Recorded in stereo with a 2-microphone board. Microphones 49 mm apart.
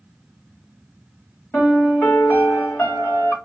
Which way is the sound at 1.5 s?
45° left (ahead or behind).